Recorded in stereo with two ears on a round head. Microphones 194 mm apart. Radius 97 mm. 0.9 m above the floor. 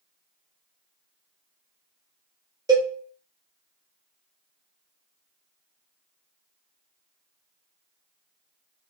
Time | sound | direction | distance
2.7 | a cowbell | 15° right (ahead or behind) | 0.8 m